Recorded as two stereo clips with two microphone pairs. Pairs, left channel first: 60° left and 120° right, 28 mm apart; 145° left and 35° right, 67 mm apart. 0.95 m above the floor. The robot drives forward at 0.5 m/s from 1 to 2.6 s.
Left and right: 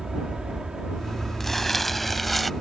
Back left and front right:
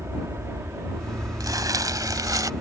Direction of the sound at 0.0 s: 65° right.